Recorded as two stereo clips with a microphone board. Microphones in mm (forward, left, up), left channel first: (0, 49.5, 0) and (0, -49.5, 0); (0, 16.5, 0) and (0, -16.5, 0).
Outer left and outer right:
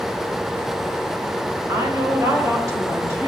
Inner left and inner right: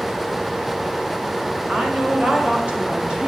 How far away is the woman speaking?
About 1.6 m.